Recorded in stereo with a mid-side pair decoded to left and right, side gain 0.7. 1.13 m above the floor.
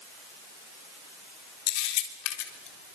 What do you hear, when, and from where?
1.7 s a camera shutter: 70° left, 3.5 m